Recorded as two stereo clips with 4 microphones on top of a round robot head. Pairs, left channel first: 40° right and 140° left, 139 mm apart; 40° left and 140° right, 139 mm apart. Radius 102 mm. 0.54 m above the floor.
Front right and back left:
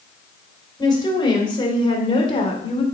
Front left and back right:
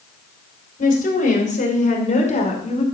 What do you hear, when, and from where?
0.8 s a woman speaking: 20° left, 3.5 m; by 2.8 s 5° left, 2 m